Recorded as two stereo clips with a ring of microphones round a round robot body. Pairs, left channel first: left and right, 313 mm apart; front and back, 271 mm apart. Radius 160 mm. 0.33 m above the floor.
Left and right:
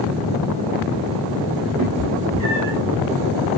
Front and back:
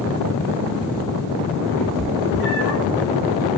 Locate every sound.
1.8 s a cat meowing: 60° right, 4.5 m